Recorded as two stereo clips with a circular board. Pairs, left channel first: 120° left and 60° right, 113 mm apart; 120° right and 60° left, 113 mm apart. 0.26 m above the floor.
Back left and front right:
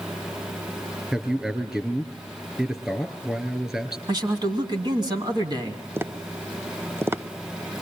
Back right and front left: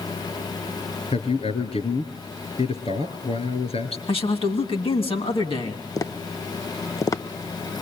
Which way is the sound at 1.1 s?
145° right.